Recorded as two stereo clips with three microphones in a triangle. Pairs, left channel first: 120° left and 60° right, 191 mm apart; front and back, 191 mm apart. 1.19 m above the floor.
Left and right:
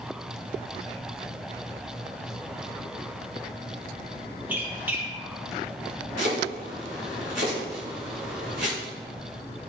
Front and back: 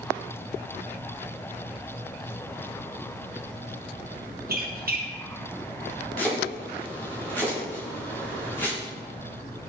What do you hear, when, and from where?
4.5 s a squeak: 140° right, 1.1 m
6.2 s chopping: 80° right, 4 m